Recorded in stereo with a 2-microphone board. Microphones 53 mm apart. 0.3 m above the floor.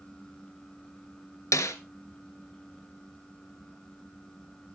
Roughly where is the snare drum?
Left.